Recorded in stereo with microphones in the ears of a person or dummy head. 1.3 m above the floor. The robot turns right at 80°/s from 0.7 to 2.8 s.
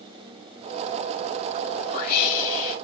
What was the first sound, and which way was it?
A whoosh, 20° left.